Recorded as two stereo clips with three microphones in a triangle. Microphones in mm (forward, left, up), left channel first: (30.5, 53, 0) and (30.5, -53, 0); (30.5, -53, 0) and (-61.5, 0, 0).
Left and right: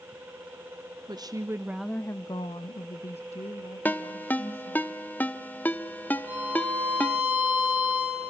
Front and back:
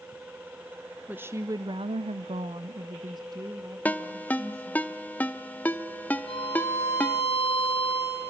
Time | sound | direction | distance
1.1 | a woman speaking | 135° right | 1.0 m
3.9 | a ringtone | 30° left | 0.9 m
6.3 | a violin | 15° right | 8 m